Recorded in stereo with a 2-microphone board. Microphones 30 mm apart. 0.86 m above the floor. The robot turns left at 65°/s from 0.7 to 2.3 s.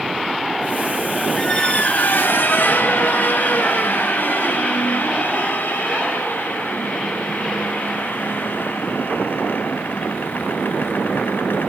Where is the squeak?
160° left, 0.6 m; by 11.7 s 100° left, 0.6 m.